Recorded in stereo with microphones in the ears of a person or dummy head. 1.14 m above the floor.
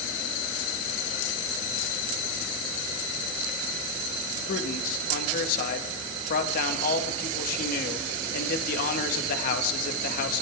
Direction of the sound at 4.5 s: 50° left (ahead or behind).